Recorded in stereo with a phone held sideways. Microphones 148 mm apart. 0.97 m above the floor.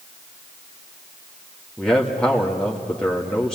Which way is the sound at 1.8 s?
5° left (ahead or behind).